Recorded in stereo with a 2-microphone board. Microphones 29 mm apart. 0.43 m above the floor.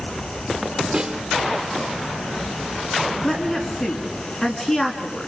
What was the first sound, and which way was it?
A snare drum, 45° right (ahead or behind).